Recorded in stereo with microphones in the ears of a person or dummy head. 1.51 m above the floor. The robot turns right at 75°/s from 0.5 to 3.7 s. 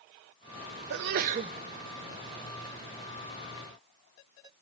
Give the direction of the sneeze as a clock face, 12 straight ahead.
2 o'clock.